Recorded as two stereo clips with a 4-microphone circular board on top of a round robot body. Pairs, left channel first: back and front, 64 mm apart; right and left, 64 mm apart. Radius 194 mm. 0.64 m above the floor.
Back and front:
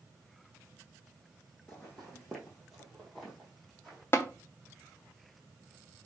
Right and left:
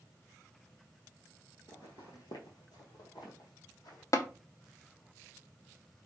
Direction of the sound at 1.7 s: 110° right.